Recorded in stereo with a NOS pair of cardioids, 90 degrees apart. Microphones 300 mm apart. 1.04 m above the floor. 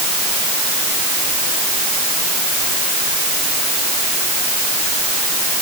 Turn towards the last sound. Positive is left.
No sound to turn to.